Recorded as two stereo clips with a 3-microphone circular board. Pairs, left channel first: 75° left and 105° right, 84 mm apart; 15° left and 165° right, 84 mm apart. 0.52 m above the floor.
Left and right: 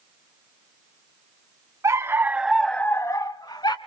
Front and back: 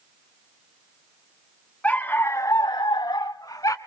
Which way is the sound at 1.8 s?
55° right.